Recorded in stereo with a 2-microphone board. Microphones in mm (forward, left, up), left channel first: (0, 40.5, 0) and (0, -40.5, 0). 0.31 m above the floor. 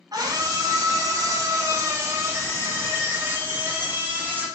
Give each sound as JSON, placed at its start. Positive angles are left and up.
{"t": 0.1, "sound": "a scream", "side_deg": -55, "distance_m": 3.0}